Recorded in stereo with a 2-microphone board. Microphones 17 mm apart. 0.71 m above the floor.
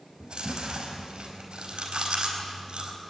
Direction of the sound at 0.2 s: 70° right (ahead or behind).